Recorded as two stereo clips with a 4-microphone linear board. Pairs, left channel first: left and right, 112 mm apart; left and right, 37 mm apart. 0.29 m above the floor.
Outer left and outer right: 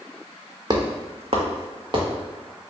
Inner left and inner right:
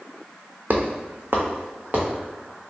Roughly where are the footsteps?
Right.